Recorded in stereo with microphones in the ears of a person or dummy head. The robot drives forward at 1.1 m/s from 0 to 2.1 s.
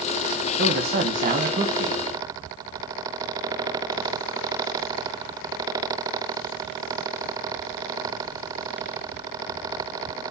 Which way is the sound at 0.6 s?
55° right (ahead or behind).